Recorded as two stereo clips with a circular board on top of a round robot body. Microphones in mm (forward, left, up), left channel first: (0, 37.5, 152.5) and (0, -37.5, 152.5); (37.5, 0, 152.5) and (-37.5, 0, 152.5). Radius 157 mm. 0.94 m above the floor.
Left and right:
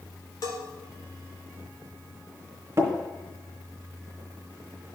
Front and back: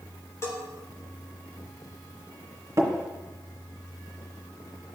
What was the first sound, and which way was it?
A bell, 50° left.